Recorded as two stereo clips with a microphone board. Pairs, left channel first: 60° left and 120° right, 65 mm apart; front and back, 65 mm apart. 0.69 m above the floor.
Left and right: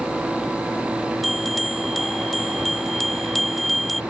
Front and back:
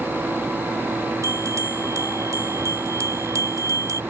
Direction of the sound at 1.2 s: 150° left.